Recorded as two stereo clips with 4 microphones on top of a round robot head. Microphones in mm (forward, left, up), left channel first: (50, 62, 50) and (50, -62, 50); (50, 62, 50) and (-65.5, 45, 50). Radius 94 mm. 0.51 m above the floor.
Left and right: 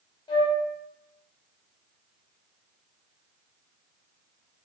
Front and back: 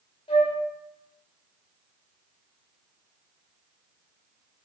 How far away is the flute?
About 1.7 m.